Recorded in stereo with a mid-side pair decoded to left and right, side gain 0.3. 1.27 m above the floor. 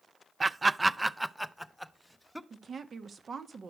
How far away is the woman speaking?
About 1.4 m.